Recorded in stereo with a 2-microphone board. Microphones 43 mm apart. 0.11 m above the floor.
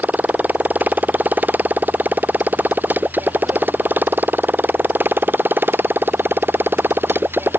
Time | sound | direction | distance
0.0 | a motorcycle | 40° right (ahead or behind) | ?